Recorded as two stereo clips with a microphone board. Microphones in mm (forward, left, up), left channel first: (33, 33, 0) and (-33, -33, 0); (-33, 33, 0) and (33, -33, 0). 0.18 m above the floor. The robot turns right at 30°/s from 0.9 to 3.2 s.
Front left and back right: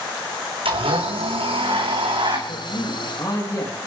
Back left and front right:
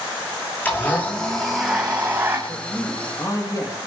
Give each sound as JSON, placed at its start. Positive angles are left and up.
{"t": 0.7, "sound": "a blender", "azimuth_deg": -155, "distance_m": 3.5}
{"t": 2.5, "sound": "a man speaking", "azimuth_deg": 65, "distance_m": 5.0}